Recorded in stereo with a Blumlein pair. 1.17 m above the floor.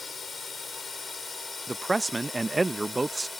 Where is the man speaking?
10° right.